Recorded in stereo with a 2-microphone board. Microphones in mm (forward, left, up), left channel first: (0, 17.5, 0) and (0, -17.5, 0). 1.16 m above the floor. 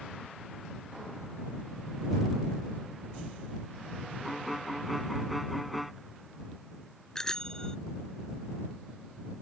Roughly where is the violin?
Centre.